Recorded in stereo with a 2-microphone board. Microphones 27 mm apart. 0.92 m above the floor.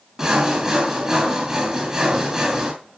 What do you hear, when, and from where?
0.2 s sawing: 25° right (ahead or behind), 5 m